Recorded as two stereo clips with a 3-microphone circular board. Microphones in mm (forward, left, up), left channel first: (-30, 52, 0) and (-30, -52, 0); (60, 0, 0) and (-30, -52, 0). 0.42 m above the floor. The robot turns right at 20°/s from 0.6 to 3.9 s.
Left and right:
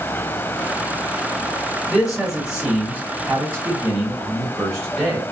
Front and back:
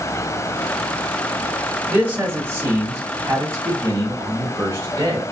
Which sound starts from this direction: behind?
A man speaking, at 1.9 s.